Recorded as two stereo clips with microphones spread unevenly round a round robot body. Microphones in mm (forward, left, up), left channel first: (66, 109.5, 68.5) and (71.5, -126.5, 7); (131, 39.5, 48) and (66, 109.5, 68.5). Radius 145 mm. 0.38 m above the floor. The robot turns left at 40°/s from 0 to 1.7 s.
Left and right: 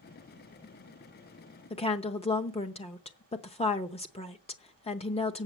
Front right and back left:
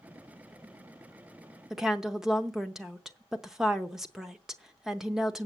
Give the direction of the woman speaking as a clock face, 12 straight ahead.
11 o'clock.